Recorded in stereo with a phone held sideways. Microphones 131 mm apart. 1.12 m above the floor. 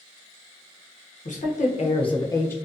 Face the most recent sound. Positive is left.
turn(degrees=15)  # may be behind; listen again after turning